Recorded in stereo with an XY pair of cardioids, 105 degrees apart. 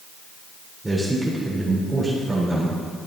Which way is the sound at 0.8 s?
5° right.